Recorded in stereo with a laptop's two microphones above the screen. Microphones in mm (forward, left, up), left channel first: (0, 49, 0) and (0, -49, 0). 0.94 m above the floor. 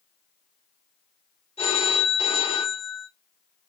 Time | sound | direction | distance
1.6 | a phone ringing | 85° left | 1.8 m